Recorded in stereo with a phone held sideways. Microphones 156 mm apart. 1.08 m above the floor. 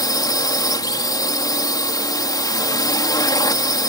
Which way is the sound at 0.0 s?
25° left (ahead or behind).